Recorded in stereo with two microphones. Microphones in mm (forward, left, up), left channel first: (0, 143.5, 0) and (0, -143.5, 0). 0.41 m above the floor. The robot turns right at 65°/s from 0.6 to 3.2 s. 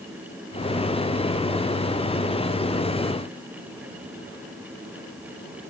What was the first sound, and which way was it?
Only background noise.